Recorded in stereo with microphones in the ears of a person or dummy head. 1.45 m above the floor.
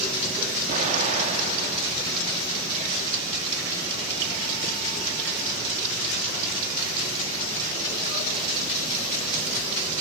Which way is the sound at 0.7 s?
45° right (ahead or behind).